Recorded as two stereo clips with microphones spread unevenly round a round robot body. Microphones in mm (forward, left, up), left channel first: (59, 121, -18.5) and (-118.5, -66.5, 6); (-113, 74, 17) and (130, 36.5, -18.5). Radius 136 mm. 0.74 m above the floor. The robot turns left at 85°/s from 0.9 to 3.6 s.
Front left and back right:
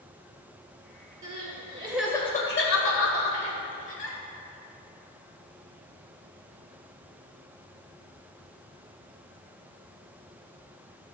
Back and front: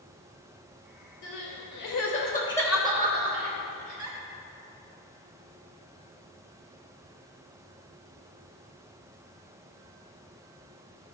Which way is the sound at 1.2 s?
155° right.